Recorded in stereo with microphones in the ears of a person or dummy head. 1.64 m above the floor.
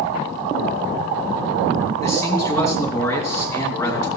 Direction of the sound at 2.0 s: 10° left (ahead or behind).